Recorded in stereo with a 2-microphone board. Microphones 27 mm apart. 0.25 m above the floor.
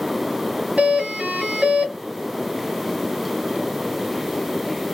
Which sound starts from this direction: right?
A doorbell, at 0.8 s.